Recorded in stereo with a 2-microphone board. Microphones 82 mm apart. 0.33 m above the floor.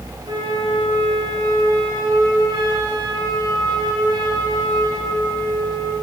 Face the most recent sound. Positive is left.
turn(degrees=-75)  # may be behind; listen again after turning